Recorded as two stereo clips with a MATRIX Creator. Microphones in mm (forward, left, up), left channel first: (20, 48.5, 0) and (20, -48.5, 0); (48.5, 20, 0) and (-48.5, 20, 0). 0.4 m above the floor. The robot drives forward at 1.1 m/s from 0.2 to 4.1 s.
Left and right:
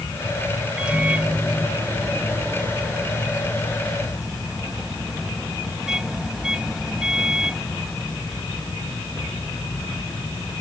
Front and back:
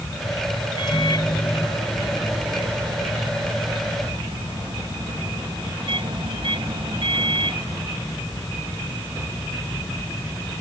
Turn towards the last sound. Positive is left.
turn(degrees=-170)